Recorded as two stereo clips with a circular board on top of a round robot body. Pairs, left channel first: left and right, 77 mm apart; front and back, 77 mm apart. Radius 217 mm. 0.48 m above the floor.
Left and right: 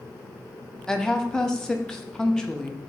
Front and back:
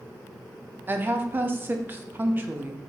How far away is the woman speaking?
About 0.7 m.